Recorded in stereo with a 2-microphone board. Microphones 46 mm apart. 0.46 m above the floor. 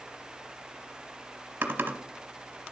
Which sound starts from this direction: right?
Typing on a keyboard, at 1.6 s.